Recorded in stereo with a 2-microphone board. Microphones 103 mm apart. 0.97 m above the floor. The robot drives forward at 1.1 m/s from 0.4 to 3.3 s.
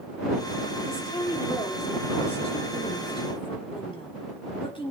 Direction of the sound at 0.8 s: 65° left (ahead or behind).